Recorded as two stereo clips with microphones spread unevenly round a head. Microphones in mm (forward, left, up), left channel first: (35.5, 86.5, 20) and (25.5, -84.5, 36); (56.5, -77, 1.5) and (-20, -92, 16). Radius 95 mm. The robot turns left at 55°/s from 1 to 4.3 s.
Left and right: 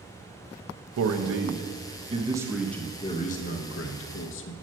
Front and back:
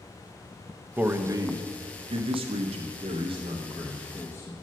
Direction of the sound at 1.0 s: 95° right.